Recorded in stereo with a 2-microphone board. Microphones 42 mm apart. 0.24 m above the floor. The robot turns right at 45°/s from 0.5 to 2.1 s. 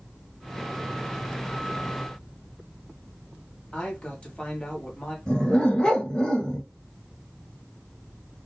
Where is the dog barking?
20° left (ahead or behind), 1.2 m.